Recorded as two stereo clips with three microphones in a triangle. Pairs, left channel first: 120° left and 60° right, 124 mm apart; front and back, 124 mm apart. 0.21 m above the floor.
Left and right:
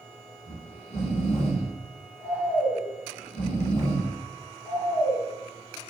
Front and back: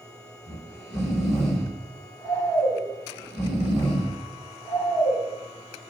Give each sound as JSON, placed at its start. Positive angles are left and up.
{"t": 0.5, "sound": "snoring", "azimuth_deg": 90, "distance_m": 1.0}